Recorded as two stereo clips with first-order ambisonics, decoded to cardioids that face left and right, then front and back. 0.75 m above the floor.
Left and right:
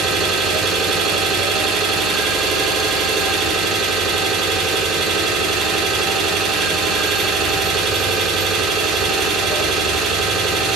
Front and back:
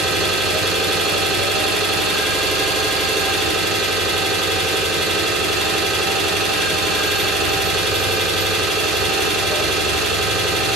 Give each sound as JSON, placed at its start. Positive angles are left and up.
{"t": 0.0, "sound": "an engine running", "azimuth_deg": -140, "distance_m": 1.6}